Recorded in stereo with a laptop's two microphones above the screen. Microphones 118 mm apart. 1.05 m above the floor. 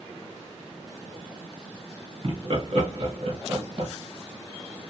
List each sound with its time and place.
2.2 s laughter: 50° right (ahead or behind), 1.2 m